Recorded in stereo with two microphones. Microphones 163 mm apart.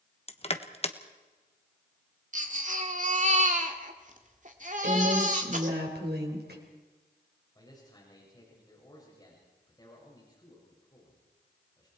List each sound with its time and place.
0.3 s crushing: 40° left (ahead or behind), 1.1 m
2.3 s a baby crying: 50° right (ahead or behind), 2.0 m
4.8 s a woman speaking: 85° right, 5 m
7.5 s a man speaking: 25° left (ahead or behind), 6 m